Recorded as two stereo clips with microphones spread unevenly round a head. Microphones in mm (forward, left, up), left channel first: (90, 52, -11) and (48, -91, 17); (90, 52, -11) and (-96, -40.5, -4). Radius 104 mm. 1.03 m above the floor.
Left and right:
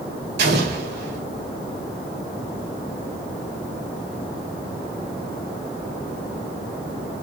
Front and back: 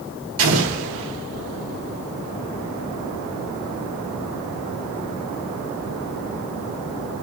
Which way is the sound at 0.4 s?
135° right.